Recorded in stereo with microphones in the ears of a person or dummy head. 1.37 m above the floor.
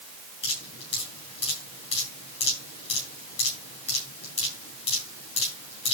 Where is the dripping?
30° left (ahead or behind), 7.5 m.